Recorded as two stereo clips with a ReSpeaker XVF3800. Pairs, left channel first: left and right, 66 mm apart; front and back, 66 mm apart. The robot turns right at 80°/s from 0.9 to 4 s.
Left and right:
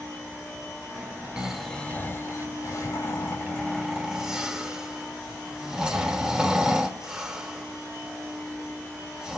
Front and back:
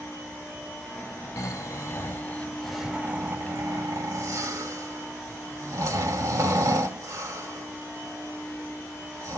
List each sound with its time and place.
1.4 s snoring: 20° right, 1.1 m; by 9.4 s 165° right, 1.1 m